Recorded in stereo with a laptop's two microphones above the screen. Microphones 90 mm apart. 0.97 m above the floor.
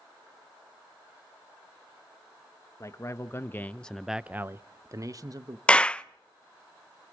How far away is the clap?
About 0.5 m.